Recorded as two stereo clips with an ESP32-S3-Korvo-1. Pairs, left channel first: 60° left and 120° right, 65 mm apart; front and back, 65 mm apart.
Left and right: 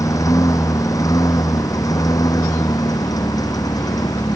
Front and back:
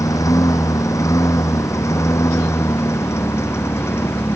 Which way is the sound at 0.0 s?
30° left.